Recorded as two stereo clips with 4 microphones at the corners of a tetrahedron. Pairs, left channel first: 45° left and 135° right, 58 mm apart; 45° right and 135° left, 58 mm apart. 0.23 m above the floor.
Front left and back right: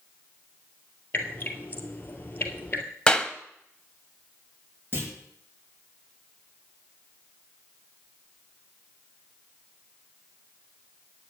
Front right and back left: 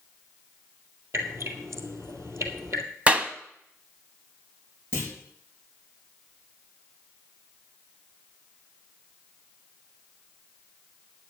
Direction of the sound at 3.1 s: 105° left.